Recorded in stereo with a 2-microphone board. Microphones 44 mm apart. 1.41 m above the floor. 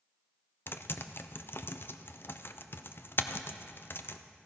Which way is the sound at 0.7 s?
55° left (ahead or behind).